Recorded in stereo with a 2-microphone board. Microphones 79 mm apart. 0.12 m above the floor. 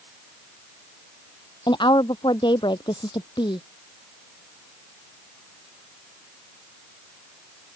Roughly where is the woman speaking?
Left.